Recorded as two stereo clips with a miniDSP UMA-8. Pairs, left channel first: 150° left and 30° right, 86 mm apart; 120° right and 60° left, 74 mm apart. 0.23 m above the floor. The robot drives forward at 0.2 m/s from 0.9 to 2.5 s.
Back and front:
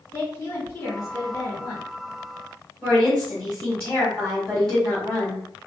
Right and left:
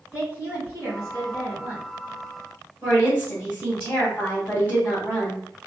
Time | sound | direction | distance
0.1 | a woman speaking | 165° right | 1.7 m
2.8 | a woman speaking | 135° right | 1.7 m